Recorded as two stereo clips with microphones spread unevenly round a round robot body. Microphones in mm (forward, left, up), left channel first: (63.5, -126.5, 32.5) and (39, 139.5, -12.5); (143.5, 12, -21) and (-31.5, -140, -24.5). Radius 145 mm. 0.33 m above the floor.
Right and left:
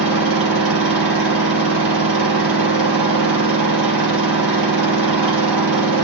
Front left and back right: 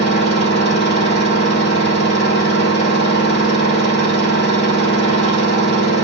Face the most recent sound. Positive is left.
turn(degrees=115)